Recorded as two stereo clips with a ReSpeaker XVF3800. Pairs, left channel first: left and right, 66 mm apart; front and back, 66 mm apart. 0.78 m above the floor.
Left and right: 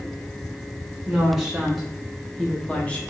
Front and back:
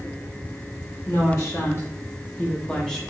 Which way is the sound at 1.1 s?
10° right.